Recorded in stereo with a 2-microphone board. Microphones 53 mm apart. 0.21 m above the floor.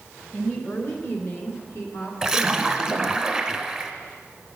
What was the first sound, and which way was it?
A woman speaking, 30° left (ahead or behind).